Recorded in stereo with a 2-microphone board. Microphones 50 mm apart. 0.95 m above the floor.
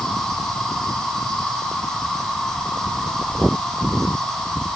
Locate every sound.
0.0 s an insect: 10° left (ahead or behind), 6 m